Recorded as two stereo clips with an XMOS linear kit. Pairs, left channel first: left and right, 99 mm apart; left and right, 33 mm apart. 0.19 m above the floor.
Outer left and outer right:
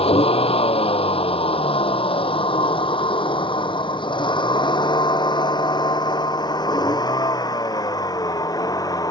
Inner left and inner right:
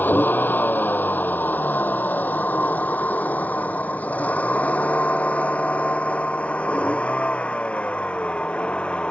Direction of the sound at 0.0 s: 80° left.